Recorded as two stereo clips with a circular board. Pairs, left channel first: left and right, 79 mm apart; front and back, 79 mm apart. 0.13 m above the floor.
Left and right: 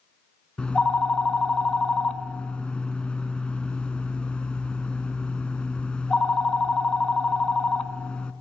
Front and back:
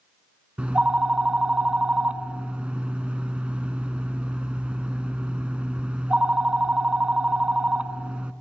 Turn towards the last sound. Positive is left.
turn(degrees=135)